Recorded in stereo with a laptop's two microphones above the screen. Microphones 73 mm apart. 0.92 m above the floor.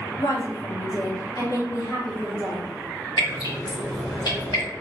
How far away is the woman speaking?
About 1.9 m.